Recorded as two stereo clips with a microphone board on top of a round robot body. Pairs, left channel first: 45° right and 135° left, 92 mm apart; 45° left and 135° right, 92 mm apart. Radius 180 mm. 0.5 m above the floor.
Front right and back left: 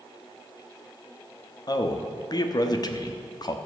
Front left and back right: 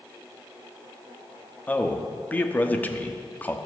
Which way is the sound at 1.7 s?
25° right.